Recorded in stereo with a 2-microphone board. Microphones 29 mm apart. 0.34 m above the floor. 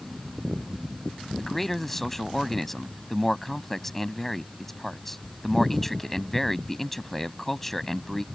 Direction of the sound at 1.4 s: 10° left (ahead or behind).